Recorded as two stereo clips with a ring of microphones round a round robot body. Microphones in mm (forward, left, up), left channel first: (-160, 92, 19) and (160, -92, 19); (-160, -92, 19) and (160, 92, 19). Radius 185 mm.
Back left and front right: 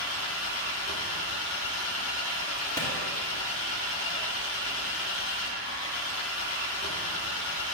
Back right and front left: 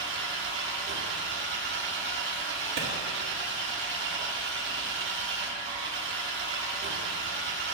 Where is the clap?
70° left, 1.8 m.